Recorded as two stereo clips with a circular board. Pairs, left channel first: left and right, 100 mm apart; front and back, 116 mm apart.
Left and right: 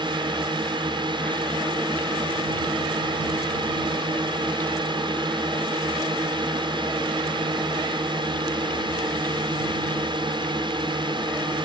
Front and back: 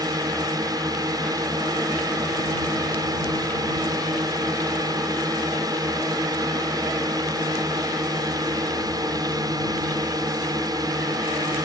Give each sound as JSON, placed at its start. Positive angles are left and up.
{"t": 0.0, "sound": "a drone", "azimuth_deg": -125}